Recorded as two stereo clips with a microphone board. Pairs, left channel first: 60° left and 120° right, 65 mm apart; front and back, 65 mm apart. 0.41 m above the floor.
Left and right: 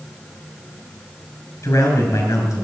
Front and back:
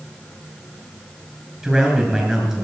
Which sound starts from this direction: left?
A man speaking, at 1.6 s.